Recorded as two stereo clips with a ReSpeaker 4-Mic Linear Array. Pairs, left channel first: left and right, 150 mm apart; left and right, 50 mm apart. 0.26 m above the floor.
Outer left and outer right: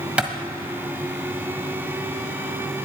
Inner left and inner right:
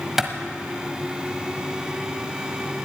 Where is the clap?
10° right (ahead or behind), 1.4 m.